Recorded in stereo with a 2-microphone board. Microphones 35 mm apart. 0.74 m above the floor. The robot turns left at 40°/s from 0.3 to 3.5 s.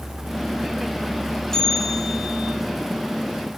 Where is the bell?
15° left, 1.3 m; by 2.5 s 25° right, 1.3 m.